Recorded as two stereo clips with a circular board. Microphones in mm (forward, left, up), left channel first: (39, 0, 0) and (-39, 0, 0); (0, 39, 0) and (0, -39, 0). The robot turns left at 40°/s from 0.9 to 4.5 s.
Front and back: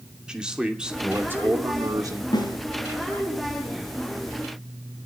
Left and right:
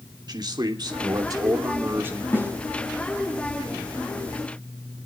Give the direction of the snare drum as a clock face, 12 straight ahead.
11 o'clock.